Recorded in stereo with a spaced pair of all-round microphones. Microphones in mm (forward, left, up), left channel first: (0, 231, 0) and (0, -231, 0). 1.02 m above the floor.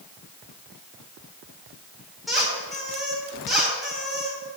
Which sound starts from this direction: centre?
A squeak, at 2.3 s.